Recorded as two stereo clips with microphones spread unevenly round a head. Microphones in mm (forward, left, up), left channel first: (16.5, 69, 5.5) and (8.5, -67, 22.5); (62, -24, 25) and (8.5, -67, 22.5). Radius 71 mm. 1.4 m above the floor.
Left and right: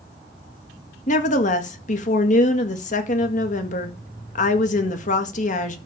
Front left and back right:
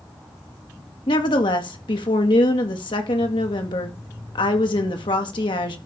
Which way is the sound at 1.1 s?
50° left.